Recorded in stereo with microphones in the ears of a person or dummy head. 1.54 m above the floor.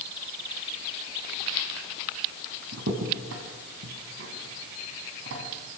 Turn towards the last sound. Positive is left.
turn(degrees=-65)  # may be behind; listen again after turning